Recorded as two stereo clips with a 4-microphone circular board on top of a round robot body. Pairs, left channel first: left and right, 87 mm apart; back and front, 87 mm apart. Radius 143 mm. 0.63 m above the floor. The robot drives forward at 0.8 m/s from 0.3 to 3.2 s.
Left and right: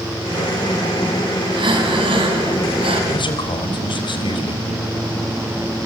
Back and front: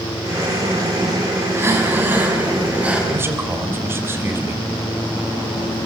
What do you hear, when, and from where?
1.5 s breathing: 60° right, 4.5 m; by 3.0 s 75° right, 4 m
3.1 s a man speaking: 65° left, 3.5 m